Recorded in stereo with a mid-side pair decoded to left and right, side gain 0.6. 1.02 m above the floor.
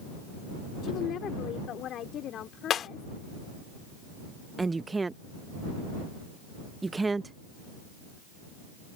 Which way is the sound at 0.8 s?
55° left.